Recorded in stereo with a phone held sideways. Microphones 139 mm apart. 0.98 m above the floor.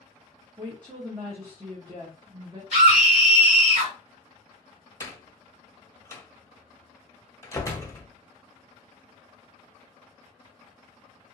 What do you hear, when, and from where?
0.6 s a woman speaking: 30° right (ahead or behind), 0.8 m
2.7 s a scream: 55° right (ahead or behind), 1.7 m
5.0 s a door slam: 20° left (ahead or behind), 0.7 m